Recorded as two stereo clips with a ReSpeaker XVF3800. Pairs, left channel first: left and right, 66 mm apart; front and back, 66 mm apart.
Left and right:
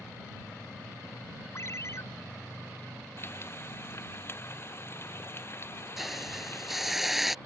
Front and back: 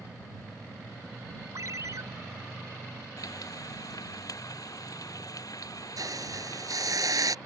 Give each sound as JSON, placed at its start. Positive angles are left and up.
{"t": 1.6, "sound": "a ringtone", "azimuth_deg": 140}
{"t": 3.2, "sound": "frying", "azimuth_deg": 35}
{"t": 6.0, "sound": "a hiss", "azimuth_deg": -175}